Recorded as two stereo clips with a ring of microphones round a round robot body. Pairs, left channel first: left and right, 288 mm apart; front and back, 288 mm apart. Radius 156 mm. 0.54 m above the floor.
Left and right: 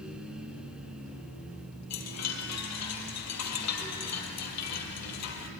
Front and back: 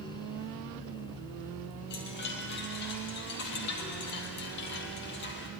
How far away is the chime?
About 2.5 m.